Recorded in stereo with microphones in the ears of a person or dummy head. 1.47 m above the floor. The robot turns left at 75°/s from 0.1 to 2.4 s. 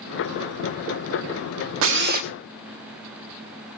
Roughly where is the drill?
Right.